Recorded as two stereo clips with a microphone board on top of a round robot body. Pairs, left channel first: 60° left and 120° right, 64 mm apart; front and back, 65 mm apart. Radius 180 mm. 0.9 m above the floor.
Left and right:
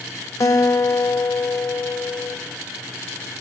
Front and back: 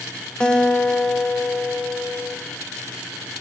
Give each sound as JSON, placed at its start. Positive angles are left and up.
{"t": 0.4, "sound": "a guitar", "azimuth_deg": 75, "distance_m": 1.5}